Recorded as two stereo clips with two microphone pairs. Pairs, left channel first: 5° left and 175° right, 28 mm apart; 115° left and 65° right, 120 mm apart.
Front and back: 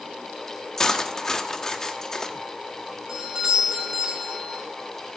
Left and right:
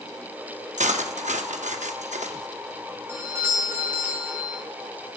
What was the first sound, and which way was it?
Cutlery clinking, 65° right.